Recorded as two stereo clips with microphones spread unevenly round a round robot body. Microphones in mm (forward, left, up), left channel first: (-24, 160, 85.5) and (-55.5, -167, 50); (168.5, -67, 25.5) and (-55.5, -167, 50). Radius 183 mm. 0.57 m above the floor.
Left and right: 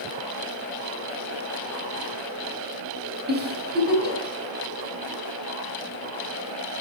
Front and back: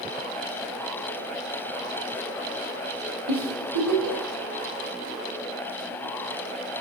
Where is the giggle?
155° right, 1.9 m.